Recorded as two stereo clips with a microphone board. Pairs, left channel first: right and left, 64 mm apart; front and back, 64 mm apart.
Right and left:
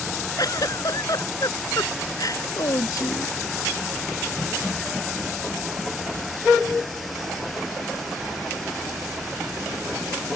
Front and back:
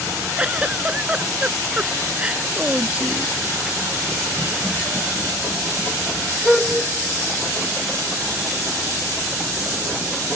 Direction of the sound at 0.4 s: 110° right.